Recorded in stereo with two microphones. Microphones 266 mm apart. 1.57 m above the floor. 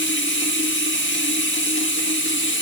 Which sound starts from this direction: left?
Running water, at 0.0 s.